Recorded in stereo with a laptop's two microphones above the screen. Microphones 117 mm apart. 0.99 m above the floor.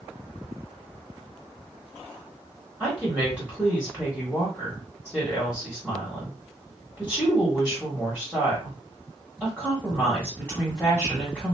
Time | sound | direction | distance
2.8 | a woman speaking | 5° right (ahead or behind) | 1.3 m